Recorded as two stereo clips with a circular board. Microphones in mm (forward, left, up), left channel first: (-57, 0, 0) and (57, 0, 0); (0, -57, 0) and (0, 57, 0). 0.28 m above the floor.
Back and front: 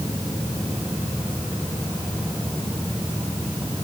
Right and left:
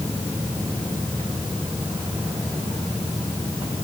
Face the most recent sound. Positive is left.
No sound to turn to.